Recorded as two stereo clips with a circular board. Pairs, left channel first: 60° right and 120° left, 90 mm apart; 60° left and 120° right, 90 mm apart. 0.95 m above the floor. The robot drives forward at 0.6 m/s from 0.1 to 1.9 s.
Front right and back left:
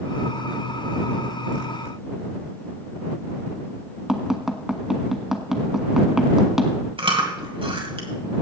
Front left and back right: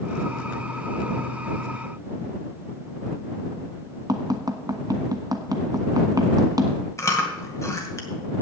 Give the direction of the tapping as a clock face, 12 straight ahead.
5 o'clock.